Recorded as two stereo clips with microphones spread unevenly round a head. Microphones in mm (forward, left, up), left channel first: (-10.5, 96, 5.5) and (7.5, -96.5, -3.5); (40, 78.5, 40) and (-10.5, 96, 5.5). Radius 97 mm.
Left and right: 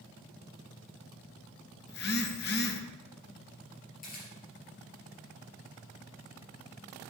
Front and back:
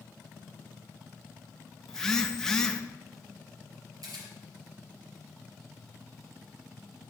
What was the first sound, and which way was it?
A phone buzzing, 55° left.